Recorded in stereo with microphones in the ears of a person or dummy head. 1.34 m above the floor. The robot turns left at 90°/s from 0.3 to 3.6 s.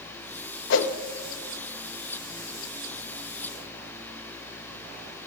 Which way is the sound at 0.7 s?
70° left (ahead or behind).